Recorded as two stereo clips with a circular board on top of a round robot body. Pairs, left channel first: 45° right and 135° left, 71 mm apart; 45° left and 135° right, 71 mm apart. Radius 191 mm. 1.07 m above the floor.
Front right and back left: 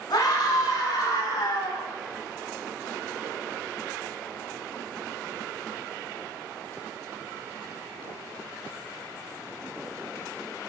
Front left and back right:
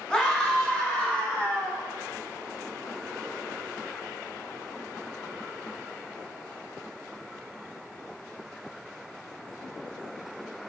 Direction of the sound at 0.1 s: 30° right.